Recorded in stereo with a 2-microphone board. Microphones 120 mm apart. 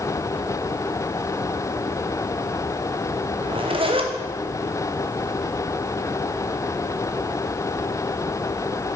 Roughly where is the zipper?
Right.